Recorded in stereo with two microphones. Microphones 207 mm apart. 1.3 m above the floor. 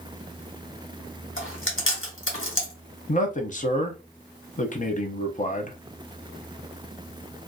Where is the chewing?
80° left, 1.3 m.